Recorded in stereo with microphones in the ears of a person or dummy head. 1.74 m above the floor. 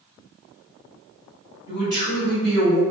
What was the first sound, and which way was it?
A man speaking, 25° right (ahead or behind).